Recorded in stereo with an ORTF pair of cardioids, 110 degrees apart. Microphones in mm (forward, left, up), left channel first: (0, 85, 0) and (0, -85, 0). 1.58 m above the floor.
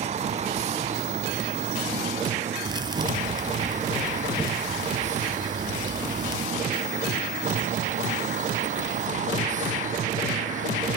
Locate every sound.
0.0 s a vehicle: 40° right; by 11.0 s 50° right
2.6 s a thud: 25° right